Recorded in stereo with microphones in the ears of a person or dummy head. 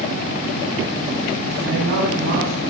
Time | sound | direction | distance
1.6 | a woman speaking | 65° right (ahead or behind) | 6.5 m